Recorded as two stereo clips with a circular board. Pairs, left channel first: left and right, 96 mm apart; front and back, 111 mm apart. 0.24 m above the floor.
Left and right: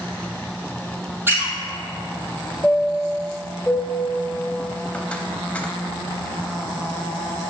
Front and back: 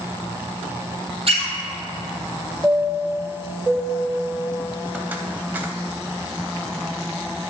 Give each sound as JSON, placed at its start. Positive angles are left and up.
{"t": 1.3, "sound": "a squeak", "azimuth_deg": -155, "distance_m": 1.2}
{"t": 2.6, "sound": "a chime", "azimuth_deg": 140, "distance_m": 0.5}